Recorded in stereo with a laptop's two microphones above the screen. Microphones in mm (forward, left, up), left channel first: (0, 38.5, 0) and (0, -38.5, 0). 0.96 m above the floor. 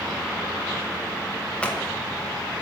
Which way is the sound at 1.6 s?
15° left (ahead or behind).